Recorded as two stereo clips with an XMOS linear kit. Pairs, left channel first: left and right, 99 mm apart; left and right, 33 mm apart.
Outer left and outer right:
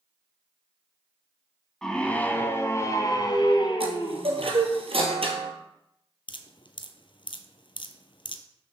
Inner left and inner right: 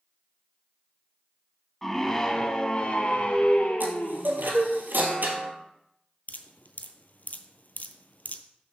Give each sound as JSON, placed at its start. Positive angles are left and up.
{"t": 1.8, "sound": "a scream", "side_deg": 5, "distance_m": 1.5}
{"t": 3.8, "sound": "a chime", "side_deg": -70, "distance_m": 1.7}
{"t": 6.3, "sound": "dripping", "side_deg": 55, "distance_m": 0.8}